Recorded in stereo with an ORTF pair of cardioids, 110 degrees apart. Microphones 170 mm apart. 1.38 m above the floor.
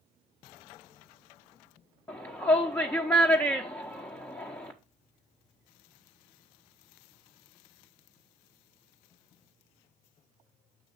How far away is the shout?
About 0.8 m.